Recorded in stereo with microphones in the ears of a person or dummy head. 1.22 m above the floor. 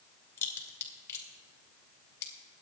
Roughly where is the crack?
Centre.